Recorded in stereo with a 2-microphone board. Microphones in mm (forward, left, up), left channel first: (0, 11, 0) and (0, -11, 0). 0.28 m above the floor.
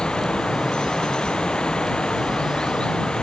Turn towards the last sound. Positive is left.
turn(degrees=35)  # may be behind; listen again after turning